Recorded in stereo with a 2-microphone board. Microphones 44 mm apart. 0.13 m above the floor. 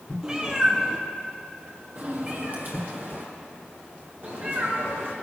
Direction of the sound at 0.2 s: 20° right (ahead or behind).